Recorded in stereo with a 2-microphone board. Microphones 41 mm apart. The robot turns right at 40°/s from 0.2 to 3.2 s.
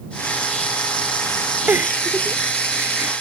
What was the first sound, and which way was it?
A giggle, 45° right (ahead or behind).